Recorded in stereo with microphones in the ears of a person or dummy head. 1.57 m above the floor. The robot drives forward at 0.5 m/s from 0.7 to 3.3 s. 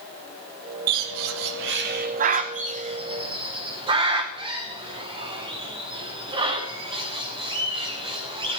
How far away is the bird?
About 0.6 m.